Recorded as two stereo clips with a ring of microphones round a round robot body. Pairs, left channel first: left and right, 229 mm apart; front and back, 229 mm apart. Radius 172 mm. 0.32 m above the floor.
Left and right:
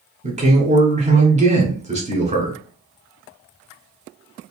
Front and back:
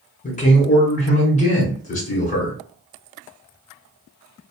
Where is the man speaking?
45° right, 1.3 m.